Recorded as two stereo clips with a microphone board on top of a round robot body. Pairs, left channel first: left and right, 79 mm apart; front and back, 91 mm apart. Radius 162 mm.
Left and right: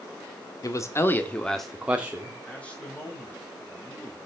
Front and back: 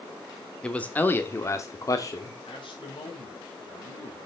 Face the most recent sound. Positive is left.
turn(degrees=15)